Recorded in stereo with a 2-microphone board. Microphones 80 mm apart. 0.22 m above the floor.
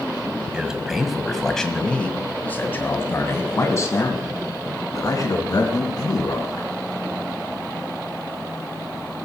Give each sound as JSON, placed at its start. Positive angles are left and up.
{"t": 0.5, "sound": "a man speaking", "side_deg": -10, "distance_m": 1.7}